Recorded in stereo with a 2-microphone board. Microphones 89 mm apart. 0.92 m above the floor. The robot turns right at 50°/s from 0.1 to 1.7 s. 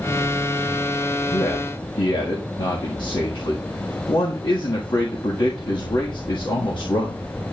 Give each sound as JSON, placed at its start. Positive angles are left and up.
{"t": 1.3, "sound": "a man speaking", "side_deg": 70, "distance_m": 1.4}